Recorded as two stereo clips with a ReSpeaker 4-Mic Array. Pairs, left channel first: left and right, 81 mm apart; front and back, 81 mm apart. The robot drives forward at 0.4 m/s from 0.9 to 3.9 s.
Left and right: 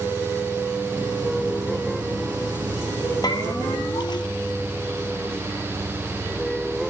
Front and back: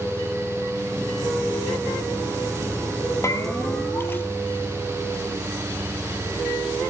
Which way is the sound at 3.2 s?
55° left.